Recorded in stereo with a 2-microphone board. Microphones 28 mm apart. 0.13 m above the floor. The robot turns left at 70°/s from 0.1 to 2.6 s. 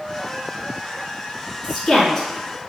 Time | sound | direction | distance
1.6 | a woman speaking | 5° right (ahead or behind) | 1.1 m